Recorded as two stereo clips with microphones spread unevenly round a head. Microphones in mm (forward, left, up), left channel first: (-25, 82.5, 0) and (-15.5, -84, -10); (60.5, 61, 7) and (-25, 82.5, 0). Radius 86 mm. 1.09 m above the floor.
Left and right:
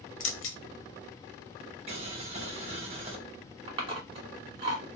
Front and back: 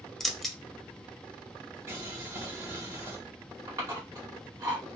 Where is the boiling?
130° right, 0.8 m.